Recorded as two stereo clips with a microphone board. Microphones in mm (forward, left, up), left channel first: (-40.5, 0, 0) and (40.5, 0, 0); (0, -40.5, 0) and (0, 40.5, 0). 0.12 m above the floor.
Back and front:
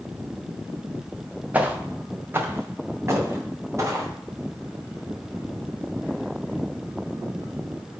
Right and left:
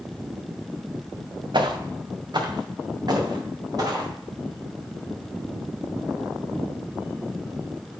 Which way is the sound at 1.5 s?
70° left.